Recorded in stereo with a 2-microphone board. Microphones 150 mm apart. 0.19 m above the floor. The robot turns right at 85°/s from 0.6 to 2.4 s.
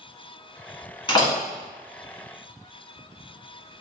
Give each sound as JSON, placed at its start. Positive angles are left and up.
{"t": 1.1, "sound": "a door slam", "side_deg": 35, "distance_m": 1.6}